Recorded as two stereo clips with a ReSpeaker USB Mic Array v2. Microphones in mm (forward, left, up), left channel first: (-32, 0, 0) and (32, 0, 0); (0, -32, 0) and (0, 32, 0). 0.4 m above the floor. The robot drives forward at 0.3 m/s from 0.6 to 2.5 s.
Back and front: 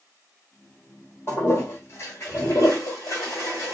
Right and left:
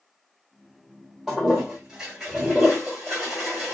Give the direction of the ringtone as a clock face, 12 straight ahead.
No ringtone in this recording.